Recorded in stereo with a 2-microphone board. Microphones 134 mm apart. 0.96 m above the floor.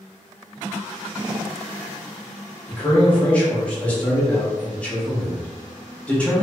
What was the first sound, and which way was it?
A man speaking, 10° left (ahead or behind).